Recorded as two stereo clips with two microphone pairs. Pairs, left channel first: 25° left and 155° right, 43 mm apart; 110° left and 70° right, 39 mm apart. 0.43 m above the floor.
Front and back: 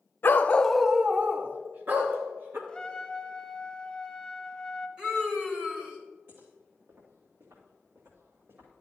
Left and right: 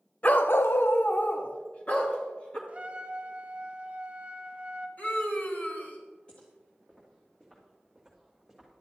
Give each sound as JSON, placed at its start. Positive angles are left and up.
{"t": 0.2, "sound": "a dog barking", "azimuth_deg": 65, "distance_m": 0.6}
{"t": 2.7, "sound": "a trumpet", "azimuth_deg": -35, "distance_m": 1.2}
{"t": 5.0, "sound": "a scream", "azimuth_deg": 145, "distance_m": 2.0}
{"t": 6.3, "sound": "footsteps", "azimuth_deg": 175, "distance_m": 3.5}